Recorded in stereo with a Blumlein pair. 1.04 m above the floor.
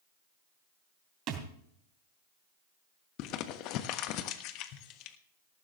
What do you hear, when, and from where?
1.3 s a thud: 35° right, 3 m
3.2 s crumpling: 40° left, 1.2 m